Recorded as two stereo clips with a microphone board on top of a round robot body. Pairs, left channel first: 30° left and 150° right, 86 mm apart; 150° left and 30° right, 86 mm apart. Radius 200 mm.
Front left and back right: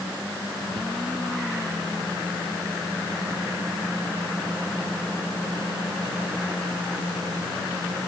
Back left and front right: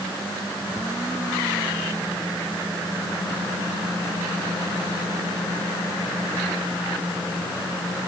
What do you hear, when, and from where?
Only background noise.